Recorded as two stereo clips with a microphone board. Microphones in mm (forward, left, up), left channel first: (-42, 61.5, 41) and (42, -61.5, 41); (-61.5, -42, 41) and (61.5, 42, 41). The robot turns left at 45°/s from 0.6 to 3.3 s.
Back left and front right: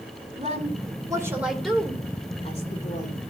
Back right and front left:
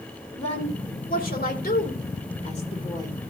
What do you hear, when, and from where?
0.3 s a woman speaking: 100° right, 3 m; by 3.2 s 145° left, 3 m